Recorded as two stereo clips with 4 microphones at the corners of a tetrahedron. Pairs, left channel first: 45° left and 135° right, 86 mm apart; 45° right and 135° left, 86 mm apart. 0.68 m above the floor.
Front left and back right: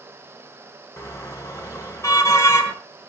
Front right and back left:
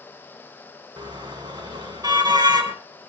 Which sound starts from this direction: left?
A car horn, at 1.0 s.